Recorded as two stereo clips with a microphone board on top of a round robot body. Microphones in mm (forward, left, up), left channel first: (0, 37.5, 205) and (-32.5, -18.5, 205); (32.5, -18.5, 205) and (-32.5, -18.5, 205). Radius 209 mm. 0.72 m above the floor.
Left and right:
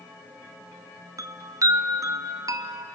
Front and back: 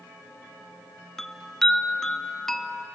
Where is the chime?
85° right, 0.8 m.